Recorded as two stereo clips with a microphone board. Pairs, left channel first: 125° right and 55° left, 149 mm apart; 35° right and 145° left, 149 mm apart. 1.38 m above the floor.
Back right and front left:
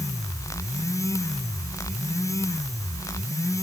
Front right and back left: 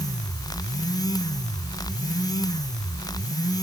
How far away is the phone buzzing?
I don't hear a phone buzzing.